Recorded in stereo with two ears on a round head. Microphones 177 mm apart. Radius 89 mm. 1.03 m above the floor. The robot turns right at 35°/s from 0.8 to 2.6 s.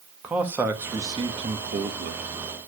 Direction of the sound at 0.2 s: 170° right.